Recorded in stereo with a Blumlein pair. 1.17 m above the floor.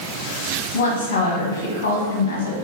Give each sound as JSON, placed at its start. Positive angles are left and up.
{"t": 0.7, "sound": "a woman speaking", "azimuth_deg": 60, "distance_m": 1.1}